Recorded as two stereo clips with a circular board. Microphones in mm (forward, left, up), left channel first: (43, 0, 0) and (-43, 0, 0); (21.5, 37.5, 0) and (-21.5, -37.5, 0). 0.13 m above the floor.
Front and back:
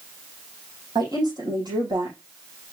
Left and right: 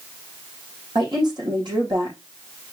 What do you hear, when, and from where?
0.9 s a woman speaking: 145° right, 6 m